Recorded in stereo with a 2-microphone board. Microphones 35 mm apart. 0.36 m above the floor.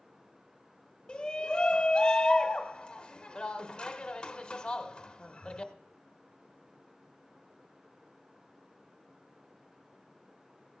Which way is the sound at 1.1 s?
25° left (ahead or behind).